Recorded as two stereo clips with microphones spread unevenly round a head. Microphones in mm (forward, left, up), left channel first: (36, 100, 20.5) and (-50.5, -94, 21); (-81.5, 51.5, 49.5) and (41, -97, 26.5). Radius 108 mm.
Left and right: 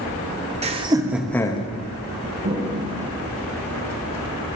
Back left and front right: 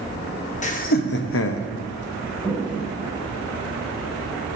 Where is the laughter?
175° right, 1.2 m; by 1.7 s 125° left, 0.8 m.